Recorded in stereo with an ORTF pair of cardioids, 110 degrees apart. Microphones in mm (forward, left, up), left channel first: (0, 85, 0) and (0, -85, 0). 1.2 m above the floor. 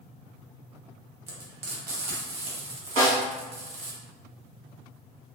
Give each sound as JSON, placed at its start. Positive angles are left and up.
{"t": 1.3, "sound": "frying", "azimuth_deg": -65, "distance_m": 1.0}
{"t": 3.0, "sound": "a snare drum", "azimuth_deg": -55, "distance_m": 1.3}